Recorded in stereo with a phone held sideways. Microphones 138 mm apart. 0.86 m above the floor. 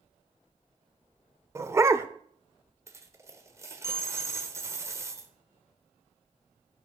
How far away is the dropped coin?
About 1.3 m.